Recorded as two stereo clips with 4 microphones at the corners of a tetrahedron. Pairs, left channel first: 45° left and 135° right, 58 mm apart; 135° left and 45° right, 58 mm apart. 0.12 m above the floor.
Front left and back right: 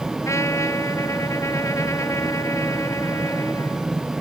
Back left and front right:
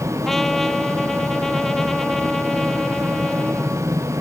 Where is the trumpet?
50° left.